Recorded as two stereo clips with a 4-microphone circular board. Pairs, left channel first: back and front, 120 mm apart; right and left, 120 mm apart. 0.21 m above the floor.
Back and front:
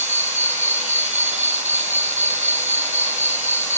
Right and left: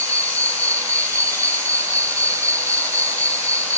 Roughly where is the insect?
Ahead left.